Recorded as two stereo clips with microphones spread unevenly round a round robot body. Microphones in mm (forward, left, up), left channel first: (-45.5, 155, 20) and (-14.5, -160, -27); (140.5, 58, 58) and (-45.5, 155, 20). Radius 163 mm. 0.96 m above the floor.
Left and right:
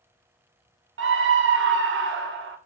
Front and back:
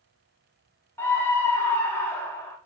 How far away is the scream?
About 0.9 m.